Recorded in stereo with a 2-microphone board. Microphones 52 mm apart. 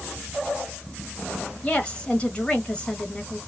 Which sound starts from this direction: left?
A woman speaking, at 1.6 s.